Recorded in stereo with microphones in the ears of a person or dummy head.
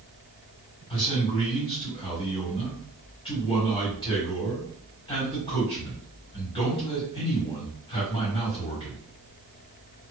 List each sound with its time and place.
0.9 s a man speaking: 25° left (ahead or behind), 1.5 m